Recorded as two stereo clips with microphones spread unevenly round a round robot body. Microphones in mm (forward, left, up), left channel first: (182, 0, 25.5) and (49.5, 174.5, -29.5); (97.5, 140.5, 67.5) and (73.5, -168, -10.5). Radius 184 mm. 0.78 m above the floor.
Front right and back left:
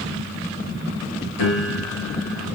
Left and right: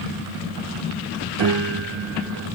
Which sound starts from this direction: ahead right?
A piano, at 1.4 s.